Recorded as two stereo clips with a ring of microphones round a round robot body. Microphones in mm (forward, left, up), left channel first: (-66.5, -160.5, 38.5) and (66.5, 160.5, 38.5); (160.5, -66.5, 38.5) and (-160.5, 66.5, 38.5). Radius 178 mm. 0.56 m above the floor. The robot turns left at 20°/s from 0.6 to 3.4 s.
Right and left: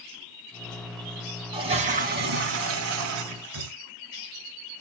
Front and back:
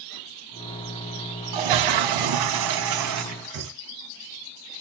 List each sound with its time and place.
1.5 s a toilet flushing: 145° left, 1.4 m; by 3.7 s 105° left, 1.4 m